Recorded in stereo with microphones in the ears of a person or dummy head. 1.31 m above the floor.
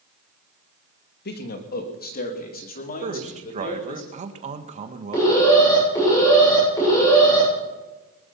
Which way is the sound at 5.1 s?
25° left (ahead or behind).